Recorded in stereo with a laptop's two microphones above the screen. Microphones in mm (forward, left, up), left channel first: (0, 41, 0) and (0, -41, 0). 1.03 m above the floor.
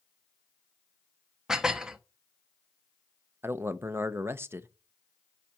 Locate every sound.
1.5 s dishes clattering: 10° right (ahead or behind), 0.5 m
3.4 s a man speaking: 30° right (ahead or behind), 0.7 m